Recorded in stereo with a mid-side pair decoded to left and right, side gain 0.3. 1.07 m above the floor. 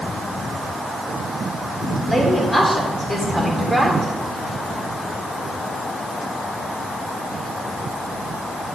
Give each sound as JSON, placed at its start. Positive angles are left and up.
{"t": 2.1, "sound": "a woman speaking", "azimuth_deg": 15, "distance_m": 3.5}